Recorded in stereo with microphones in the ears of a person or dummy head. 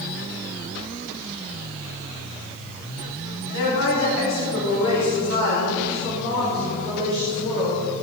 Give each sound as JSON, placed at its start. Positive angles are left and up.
{"t": 3.5, "sound": "a woman speaking", "side_deg": 70, "distance_m": 3.0}